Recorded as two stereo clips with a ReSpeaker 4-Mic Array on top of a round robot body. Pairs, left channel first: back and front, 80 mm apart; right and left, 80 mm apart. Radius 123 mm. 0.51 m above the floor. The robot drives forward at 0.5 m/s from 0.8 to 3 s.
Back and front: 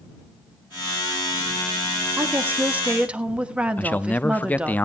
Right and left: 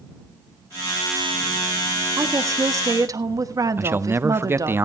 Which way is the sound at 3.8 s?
125° left.